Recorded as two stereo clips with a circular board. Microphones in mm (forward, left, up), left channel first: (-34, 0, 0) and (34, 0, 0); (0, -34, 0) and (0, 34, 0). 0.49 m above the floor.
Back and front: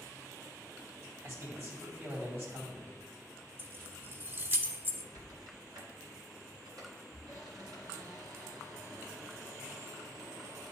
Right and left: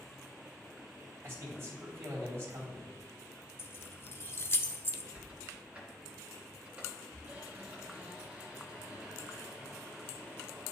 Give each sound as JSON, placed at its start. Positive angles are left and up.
{"t": 1.2, "sound": "a man speaking", "azimuth_deg": 45, "distance_m": 3.0}
{"t": 3.6, "sound": "keys jangling", "azimuth_deg": -45, "distance_m": 0.6}
{"t": 5.1, "sound": "a squeak", "azimuth_deg": 15, "distance_m": 2.0}